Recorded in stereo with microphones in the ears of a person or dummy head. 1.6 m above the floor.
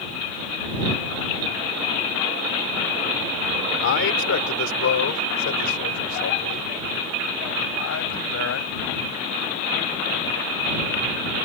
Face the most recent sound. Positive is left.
turn(degrees=65)  # may be behind; listen again after turning